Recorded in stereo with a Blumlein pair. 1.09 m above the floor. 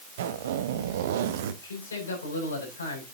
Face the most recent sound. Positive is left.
turn(degrees=70)